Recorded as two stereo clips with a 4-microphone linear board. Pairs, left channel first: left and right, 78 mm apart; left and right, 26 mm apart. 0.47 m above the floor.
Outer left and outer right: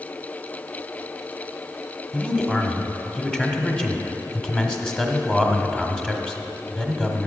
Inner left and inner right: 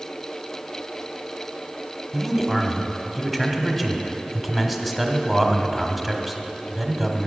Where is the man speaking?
10° left (ahead or behind), 1.2 m.